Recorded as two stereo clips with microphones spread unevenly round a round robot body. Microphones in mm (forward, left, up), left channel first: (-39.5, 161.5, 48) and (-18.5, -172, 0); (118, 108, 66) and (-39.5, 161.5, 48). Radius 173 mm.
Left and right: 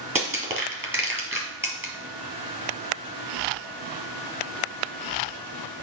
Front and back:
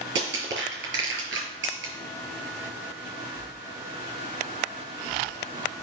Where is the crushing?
170° right, 2 m.